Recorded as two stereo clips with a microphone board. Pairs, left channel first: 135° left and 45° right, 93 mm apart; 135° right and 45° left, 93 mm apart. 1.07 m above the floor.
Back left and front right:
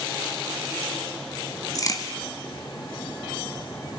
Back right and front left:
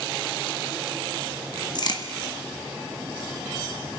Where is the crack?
175° right, 1.9 m.